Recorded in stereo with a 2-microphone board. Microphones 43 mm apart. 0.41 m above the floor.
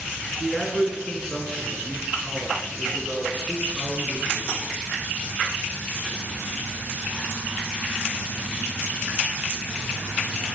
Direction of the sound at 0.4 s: Centre (ahead or behind).